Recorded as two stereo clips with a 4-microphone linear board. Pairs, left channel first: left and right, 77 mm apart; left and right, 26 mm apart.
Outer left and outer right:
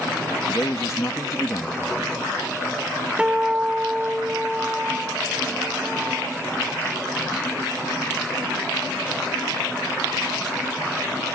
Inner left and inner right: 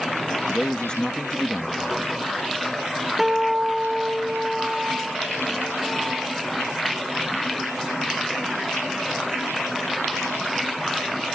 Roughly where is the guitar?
Centre.